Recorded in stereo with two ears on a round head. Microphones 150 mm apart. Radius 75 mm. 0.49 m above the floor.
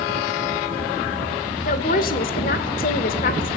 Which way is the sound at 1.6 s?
50° left (ahead or behind).